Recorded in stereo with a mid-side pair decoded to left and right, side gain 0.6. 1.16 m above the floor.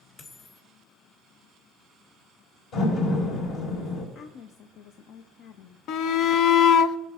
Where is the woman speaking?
60° left, 0.6 m.